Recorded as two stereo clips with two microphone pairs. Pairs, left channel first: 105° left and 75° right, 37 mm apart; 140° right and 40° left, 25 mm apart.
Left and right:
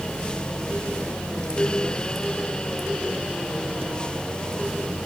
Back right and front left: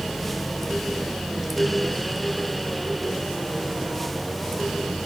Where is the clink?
I don't hear a clink.